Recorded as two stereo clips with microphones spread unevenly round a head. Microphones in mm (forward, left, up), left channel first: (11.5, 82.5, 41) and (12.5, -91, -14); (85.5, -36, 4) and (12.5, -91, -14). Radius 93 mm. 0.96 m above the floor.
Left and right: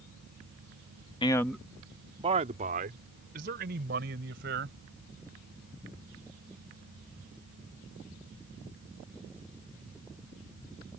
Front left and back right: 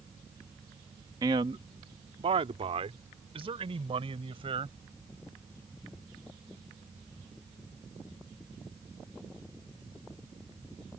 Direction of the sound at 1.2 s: 160° left.